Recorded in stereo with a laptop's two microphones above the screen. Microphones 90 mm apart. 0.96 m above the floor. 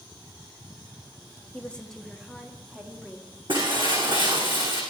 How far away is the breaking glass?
About 6 m.